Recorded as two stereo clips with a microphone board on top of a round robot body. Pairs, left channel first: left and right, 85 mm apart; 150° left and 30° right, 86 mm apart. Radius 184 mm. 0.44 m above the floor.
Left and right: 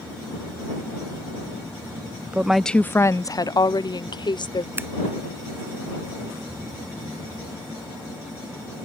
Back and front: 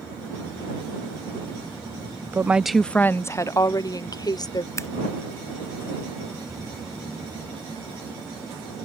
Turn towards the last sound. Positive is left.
turn(degrees=-155)